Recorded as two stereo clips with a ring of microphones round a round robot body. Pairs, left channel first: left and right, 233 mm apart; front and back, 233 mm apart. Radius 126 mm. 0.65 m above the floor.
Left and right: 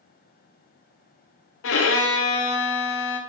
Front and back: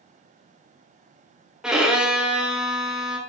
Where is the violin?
95° left, 0.6 m.